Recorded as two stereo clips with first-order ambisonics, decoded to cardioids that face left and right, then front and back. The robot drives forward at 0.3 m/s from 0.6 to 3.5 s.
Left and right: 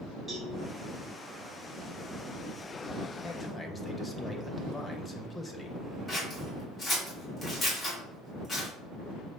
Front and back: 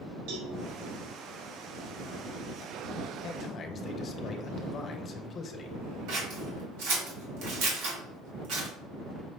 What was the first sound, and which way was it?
A cowbell, straight behind.